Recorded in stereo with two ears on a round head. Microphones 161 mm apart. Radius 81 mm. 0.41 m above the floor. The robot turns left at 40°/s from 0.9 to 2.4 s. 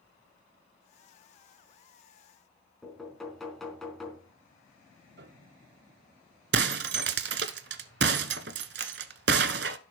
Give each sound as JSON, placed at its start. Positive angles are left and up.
{"t": 2.8, "sound": "knocking", "side_deg": 0, "distance_m": 3.5}
{"t": 5.2, "sound": "a piano", "side_deg": -65, "distance_m": 1.2}
{"t": 6.5, "sound": "breaking glass", "side_deg": -60, "distance_m": 0.9}